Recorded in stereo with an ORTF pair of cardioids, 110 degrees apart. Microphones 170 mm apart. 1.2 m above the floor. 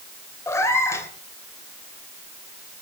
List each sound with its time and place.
0.5 s a cat meowing: 15° left, 3 m